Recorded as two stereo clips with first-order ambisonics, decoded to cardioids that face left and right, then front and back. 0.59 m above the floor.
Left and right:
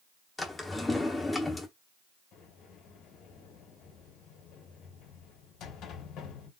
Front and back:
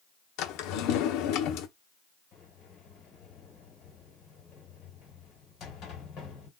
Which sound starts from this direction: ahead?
A drawer, at 0.4 s.